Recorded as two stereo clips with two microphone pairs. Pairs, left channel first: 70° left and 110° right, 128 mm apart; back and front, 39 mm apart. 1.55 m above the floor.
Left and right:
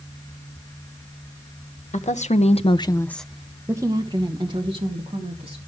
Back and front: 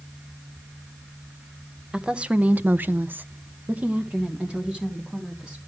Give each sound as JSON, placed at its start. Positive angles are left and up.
{"t": 1.9, "sound": "a woman speaking", "azimuth_deg": 70, "distance_m": 1.3}